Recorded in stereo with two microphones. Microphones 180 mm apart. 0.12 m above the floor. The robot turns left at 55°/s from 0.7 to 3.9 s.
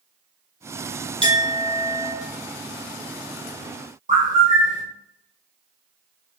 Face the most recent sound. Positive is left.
turn(degrees=-45)  # may be behind; listen again after turning